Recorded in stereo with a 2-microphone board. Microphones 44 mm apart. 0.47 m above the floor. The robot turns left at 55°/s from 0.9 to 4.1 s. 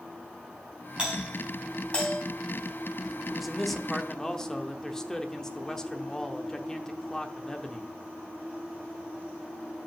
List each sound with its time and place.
1.0 s a doorbell: 25° right (ahead or behind), 4 m; by 2.2 s 40° left (ahead or behind), 4 m
3.3 s a man speaking: 5° right (ahead or behind), 0.8 m; by 7.9 s 15° left (ahead or behind), 0.8 m